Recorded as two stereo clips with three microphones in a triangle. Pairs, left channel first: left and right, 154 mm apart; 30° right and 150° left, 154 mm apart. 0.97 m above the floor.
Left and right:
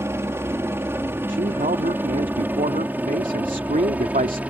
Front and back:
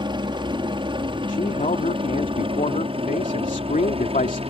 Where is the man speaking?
65° right.